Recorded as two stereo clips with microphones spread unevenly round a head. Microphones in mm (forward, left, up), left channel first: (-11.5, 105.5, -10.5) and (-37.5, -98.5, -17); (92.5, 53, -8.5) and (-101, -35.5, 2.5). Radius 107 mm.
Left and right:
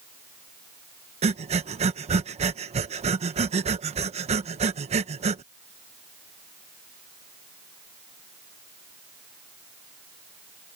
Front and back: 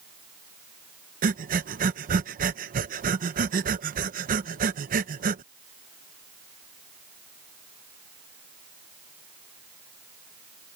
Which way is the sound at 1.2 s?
140° right.